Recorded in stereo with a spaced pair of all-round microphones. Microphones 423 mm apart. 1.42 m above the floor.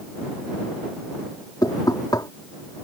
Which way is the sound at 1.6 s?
10° left (ahead or behind).